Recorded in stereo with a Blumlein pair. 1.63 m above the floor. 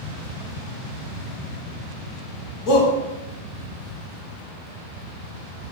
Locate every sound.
2.7 s a shout: 30° left, 3 m